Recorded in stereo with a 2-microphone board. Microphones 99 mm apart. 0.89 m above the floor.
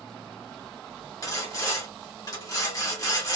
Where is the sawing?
40° left (ahead or behind), 1.4 m.